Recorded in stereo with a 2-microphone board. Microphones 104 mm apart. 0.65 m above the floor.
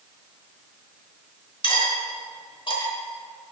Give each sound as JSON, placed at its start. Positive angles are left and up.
{"t": 1.6, "sound": "cutlery clinking", "side_deg": 55, "distance_m": 1.3}